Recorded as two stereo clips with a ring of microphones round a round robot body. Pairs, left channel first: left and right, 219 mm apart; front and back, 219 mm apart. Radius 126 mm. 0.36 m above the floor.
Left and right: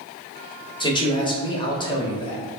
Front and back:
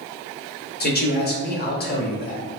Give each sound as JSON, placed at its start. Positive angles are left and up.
{"t": 0.8, "sound": "a man speaking", "azimuth_deg": 30, "distance_m": 1.2}